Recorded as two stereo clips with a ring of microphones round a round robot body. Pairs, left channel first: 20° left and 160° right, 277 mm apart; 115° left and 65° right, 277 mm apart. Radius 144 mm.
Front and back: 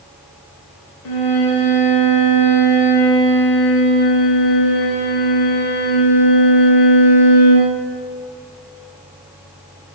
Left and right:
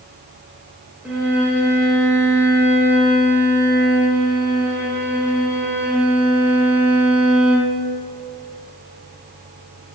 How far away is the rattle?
I don't hear a rattle.